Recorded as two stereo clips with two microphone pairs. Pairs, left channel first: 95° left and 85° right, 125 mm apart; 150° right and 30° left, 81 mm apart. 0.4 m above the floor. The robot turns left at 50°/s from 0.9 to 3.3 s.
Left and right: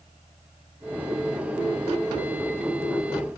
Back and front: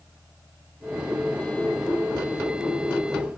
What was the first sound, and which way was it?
Only background noise.